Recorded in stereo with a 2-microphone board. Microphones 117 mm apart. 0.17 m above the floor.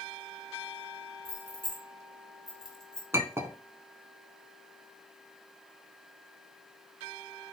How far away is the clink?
About 0.8 m.